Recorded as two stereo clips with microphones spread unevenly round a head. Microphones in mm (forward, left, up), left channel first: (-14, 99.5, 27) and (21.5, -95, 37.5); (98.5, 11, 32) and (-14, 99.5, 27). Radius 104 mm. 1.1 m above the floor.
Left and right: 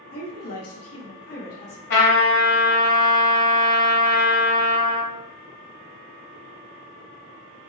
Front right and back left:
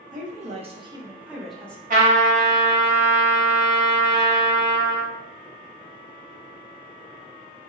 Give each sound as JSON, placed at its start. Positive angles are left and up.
{"t": 0.1, "sound": "a woman speaking", "azimuth_deg": 115, "distance_m": 0.9}
{"t": 1.9, "sound": "a trumpet", "azimuth_deg": 125, "distance_m": 1.6}